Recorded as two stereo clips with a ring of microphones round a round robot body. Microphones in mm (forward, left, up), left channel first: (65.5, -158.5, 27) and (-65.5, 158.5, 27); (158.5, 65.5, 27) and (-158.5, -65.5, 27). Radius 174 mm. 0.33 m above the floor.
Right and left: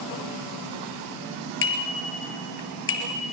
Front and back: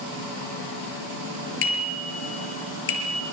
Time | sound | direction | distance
1.6 | a bicycle bell | 10° right | 5.5 m